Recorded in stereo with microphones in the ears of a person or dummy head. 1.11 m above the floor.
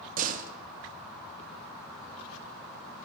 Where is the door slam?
50° right (ahead or behind), 1.3 m.